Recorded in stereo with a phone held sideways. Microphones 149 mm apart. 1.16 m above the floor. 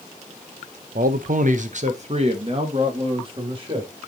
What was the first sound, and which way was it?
A man speaking, 75° right (ahead or behind).